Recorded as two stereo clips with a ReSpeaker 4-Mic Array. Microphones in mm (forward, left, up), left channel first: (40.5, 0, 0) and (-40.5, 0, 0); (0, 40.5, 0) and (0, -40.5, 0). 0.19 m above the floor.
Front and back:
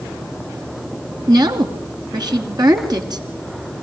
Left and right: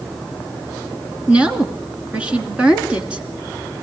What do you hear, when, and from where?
1.3 s a woman speaking: 160° right, 2.5 m